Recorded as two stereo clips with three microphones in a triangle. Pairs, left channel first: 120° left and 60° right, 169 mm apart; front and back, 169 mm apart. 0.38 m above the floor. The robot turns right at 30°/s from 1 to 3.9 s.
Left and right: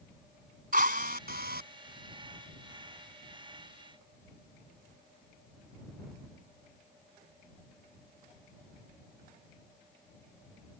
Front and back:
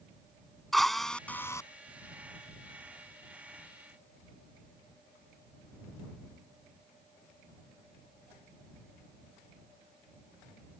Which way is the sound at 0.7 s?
90° right.